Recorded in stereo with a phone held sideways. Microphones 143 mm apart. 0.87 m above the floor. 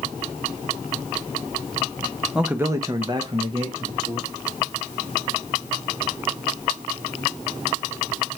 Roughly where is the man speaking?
Centre.